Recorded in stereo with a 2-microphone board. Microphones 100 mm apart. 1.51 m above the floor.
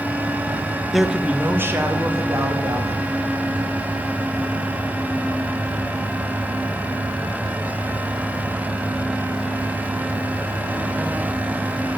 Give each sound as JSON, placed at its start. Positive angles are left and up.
{"t": 0.9, "sound": "a man speaking", "side_deg": 0, "distance_m": 0.5}